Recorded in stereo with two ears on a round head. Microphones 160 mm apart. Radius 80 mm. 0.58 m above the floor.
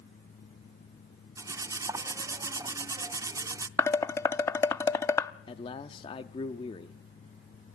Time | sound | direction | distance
1.4 | cutlery clinking | 20° right (ahead or behind) | 0.5 m
3.8 | dishes clattering | 15° left (ahead or behind) | 0.5 m
5.5 | a man speaking | 30° left (ahead or behind) | 0.7 m